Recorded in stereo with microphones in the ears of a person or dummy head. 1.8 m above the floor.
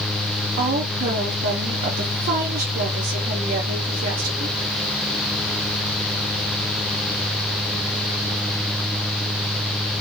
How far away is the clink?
No clink in this recording.